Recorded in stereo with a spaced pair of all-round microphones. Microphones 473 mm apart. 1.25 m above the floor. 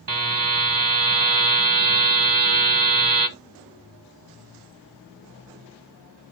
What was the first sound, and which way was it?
A buzzer, 45° right (ahead or behind).